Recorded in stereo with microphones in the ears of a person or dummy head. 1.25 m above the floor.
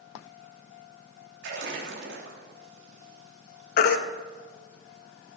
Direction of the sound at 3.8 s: 60° left (ahead or behind).